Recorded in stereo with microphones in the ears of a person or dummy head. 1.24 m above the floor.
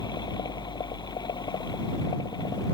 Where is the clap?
No clap in this recording.